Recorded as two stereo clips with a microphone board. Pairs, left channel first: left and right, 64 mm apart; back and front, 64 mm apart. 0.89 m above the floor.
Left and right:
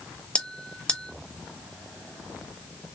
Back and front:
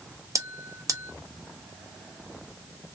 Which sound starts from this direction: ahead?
A bell, at 0.3 s.